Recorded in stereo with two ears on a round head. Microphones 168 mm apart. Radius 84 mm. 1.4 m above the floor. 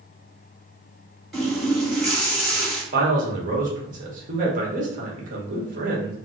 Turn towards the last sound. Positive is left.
turn(degrees=-45)  # may be behind; listen again after turning